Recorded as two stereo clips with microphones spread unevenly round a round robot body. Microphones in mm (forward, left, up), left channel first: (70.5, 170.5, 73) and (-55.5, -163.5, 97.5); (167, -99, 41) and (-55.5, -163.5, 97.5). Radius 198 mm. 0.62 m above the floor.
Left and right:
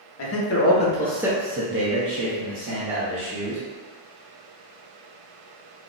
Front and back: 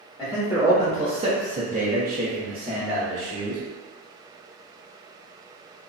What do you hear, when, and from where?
0.2 s a man speaking: 95° left, 0.9 m; by 3.6 s 100° right, 1.5 m